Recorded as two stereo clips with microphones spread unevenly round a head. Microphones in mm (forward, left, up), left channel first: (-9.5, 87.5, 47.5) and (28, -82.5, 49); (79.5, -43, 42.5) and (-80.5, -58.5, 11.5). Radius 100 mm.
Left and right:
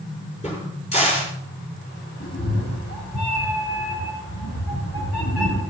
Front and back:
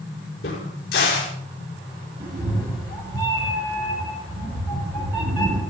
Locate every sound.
0.4 s a crack: 50° left, 5 m
2.2 s a cat meowing: 130° left, 2.5 m